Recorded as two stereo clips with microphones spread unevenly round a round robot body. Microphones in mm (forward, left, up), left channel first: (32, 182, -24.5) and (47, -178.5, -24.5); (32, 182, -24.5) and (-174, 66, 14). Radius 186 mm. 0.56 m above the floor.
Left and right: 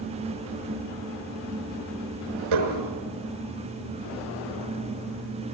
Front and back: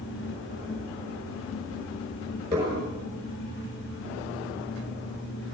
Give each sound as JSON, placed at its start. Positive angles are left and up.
{"t": 2.5, "sound": "dishes clattering", "azimuth_deg": -70, "distance_m": 4.5}